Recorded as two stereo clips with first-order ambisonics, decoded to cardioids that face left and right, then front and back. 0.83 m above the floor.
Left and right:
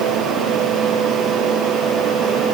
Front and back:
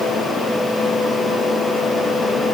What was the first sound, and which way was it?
Only background noise.